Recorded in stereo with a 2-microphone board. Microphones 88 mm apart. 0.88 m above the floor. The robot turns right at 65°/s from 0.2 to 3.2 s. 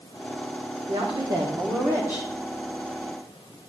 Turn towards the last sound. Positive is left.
turn(degrees=45)